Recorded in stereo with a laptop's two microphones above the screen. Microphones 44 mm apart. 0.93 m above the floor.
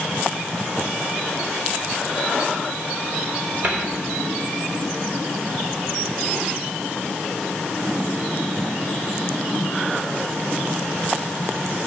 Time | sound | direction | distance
3.6 | a cupboard door | 45° right (ahead or behind) | 3.5 m